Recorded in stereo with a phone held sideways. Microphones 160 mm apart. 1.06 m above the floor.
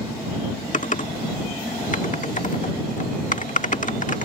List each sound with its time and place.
0.7 s typing on a keyboard: 50° left (ahead or behind)